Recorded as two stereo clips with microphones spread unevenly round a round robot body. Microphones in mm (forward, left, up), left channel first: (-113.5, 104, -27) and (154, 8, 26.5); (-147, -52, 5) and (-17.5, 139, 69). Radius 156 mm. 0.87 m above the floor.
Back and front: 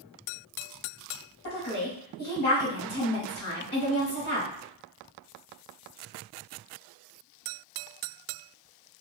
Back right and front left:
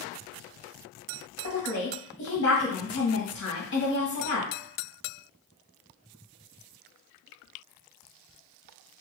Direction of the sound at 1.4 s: 145° right.